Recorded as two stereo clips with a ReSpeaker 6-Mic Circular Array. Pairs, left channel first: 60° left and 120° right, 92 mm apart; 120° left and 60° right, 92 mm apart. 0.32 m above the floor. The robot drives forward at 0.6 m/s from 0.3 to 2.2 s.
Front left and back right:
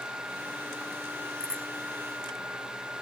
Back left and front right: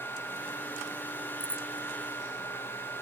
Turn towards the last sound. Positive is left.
turn(degrees=-25)